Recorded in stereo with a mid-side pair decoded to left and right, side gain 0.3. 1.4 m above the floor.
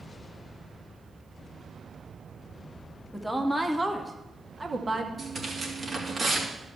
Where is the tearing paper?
45° right, 3 m.